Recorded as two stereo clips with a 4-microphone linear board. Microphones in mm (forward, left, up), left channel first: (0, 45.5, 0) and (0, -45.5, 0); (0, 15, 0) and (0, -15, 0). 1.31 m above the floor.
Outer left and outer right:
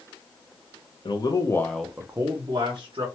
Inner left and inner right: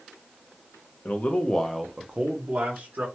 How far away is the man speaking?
About 0.7 m.